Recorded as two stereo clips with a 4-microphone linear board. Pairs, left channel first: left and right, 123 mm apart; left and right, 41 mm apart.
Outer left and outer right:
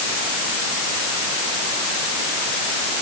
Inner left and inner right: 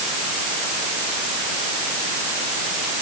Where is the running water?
No running water in this recording.